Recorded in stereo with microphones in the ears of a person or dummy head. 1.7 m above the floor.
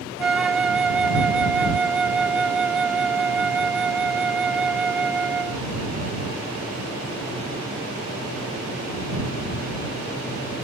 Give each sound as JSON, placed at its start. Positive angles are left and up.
{"t": 0.2, "sound": "a flute", "side_deg": -15}